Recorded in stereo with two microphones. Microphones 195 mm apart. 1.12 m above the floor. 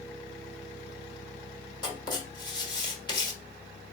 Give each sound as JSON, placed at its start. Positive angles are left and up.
{"t": 1.8, "sound": "writing", "side_deg": 20, "distance_m": 1.1}